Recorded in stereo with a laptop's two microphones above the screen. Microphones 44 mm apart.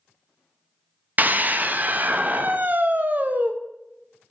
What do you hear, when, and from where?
1.2 s a scream: 40° right (ahead or behind), 0.6 m